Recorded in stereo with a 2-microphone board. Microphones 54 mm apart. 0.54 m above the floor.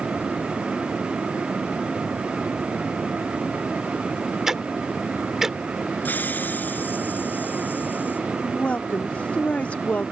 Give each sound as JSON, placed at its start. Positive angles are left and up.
{"t": 4.5, "sound": "ticking", "side_deg": -10}
{"t": 6.0, "sound": "a hiss", "side_deg": 35}
{"t": 8.4, "sound": "a woman speaking", "side_deg": 25}